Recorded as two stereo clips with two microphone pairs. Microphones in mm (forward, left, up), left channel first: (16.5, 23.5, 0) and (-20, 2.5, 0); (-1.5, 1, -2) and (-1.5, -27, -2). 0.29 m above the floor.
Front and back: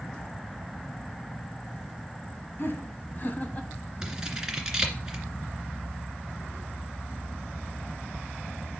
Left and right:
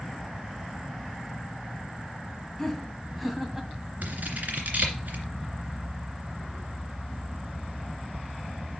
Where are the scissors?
75° right, 2.5 m.